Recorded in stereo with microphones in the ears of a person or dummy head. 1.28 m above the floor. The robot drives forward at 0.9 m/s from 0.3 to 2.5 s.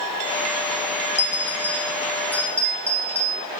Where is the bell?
15° left (ahead or behind), 0.8 m; by 3.4 s 5° left (ahead or behind), 1.9 m.